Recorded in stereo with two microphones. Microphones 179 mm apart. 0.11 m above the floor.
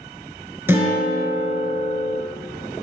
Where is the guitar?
15° right (ahead or behind), 1.1 m.